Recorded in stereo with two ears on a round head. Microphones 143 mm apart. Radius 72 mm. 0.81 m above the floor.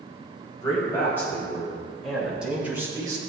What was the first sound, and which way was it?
A man speaking, 20° left (ahead or behind).